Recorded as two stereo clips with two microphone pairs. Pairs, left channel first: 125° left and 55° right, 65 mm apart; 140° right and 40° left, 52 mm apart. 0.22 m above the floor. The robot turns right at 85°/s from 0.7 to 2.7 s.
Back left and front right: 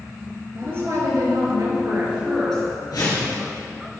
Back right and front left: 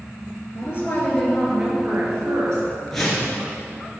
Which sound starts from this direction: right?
A woman speaking, at 0.6 s.